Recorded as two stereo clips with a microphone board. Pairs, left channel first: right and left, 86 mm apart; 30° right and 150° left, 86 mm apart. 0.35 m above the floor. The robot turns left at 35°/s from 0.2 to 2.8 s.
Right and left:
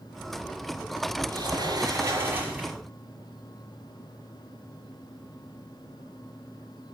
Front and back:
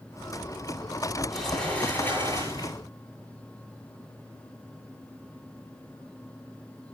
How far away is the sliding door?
About 7.5 m.